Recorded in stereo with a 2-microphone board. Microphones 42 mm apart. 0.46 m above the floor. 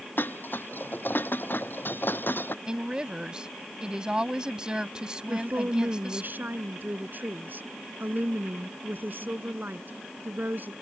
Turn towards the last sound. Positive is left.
turn(degrees=-55)  # may be behind; listen again after turning